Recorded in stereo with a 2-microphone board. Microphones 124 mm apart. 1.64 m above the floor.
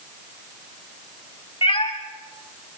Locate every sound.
1.6 s a cat meowing: 50° left (ahead or behind), 2 m